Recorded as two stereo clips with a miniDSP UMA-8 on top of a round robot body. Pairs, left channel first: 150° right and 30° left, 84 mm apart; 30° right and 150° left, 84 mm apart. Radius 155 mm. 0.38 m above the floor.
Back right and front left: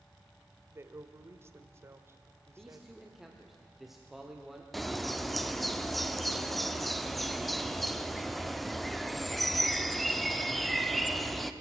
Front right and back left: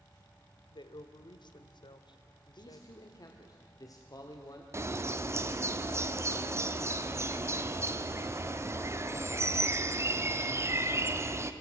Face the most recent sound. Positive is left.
turn(degrees=120)